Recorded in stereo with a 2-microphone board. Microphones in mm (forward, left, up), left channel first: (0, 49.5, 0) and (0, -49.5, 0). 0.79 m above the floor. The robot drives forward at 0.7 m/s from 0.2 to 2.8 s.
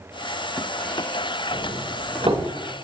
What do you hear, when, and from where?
1.5 s a doorbell: 65° right (ahead or behind), 3 m